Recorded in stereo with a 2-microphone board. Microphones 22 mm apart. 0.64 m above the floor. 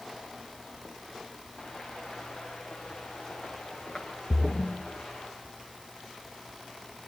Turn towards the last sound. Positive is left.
turn(degrees=30)  # may be behind; listen again after turning